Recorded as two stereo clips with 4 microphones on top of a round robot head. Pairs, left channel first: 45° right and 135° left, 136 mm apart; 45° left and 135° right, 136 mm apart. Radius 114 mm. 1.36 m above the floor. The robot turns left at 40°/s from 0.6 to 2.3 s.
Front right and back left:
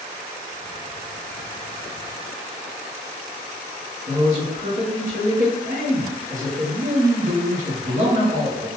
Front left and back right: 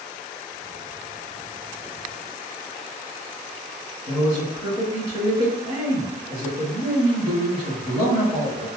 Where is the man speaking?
175° left, 1.7 m.